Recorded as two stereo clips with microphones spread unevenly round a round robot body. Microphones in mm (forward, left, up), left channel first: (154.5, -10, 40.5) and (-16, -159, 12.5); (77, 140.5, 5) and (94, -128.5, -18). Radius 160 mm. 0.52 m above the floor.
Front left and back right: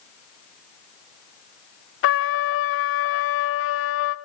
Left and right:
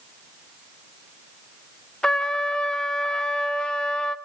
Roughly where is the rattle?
I don't hear a rattle.